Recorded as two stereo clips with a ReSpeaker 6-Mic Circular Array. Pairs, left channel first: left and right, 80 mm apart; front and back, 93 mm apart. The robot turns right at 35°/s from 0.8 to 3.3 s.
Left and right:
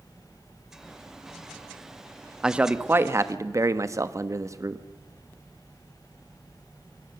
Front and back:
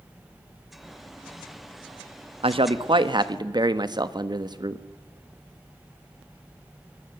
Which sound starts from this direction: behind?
A man speaking, at 2.4 s.